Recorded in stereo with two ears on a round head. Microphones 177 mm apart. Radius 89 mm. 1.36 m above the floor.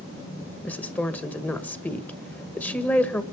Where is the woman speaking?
10° left (ahead or behind), 1.6 m.